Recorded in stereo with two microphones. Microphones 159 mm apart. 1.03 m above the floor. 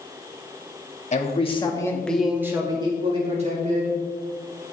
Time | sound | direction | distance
1.1 | a man speaking | 45° left (ahead or behind) | 1.9 m